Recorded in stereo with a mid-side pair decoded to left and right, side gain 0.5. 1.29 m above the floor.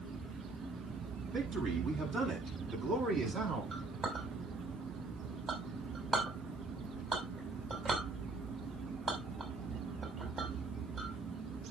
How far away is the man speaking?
About 7.5 m.